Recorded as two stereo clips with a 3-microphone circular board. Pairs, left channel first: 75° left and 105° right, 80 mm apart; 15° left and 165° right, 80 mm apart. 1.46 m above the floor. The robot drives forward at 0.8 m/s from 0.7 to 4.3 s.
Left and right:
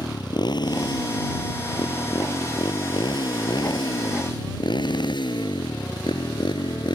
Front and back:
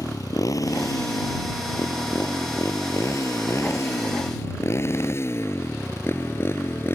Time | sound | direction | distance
0.0 | a motorcycle | 55° left | ?